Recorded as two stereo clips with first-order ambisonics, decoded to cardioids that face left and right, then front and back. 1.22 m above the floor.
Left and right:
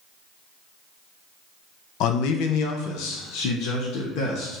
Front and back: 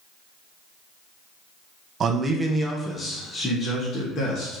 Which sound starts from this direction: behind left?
A man speaking, at 2.0 s.